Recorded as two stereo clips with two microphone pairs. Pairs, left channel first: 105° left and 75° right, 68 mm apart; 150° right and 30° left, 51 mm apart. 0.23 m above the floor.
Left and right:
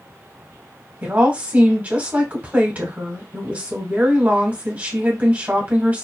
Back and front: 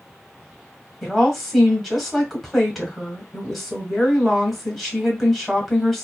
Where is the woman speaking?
70° right, 1.2 m.